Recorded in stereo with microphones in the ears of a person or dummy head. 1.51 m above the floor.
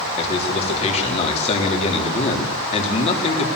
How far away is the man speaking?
About 4 m.